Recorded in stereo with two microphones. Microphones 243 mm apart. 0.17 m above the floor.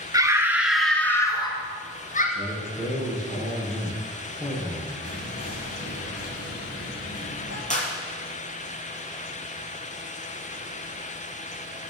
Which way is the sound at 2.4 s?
20° left (ahead or behind).